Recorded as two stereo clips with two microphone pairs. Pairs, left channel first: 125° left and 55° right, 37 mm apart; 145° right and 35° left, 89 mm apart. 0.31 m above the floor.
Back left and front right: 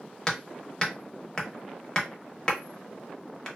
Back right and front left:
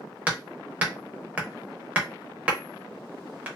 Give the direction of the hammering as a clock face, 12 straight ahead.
9 o'clock.